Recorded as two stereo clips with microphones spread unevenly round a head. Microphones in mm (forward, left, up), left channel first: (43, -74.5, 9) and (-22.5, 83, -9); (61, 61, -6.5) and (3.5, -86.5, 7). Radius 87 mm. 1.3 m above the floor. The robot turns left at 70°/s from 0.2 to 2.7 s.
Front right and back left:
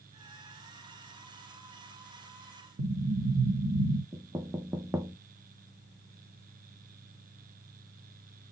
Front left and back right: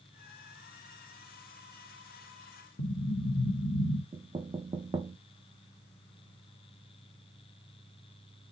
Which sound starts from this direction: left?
An explosion, at 2.8 s.